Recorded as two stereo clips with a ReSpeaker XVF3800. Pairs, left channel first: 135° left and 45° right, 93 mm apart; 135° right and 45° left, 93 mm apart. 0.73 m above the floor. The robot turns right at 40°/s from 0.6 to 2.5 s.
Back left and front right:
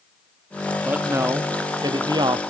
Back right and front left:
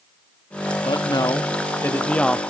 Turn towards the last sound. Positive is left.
turn(degrees=-45)